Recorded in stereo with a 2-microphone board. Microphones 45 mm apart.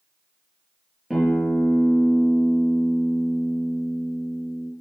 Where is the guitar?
5° right (ahead or behind), 3 m.